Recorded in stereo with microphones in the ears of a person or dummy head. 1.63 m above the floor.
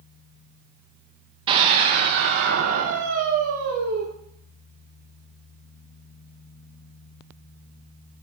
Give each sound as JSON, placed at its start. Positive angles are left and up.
{"t": 1.5, "sound": "a scream", "side_deg": -30, "distance_m": 0.6}